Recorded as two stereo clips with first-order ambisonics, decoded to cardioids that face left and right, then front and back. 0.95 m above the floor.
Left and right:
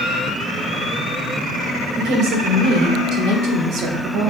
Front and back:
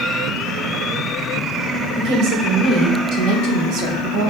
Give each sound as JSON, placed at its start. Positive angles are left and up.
{"t": 1.9, "sound": "a woman speaking", "azimuth_deg": -130, "distance_m": 3.5}